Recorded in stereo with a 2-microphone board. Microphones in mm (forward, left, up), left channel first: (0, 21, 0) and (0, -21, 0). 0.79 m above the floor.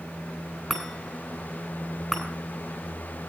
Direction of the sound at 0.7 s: 5° right (ahead or behind).